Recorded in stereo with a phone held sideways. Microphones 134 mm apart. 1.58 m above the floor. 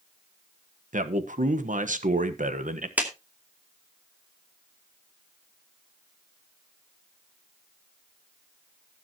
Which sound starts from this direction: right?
A man speaking, at 0.9 s.